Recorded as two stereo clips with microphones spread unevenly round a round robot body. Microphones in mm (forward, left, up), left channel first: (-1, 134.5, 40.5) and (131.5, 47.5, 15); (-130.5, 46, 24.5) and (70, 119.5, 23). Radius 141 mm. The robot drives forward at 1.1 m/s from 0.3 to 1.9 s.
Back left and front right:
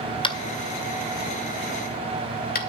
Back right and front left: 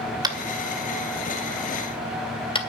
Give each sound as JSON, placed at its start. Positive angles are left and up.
{"t": 0.2, "sound": "tapping", "azimuth_deg": 85, "distance_m": 2.0}